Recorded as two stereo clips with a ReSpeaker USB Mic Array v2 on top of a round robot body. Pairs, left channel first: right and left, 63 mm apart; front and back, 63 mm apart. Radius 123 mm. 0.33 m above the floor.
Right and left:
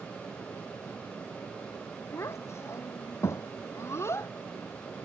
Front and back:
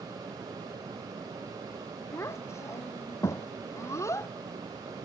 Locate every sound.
2.1 s a child speaking: 45° right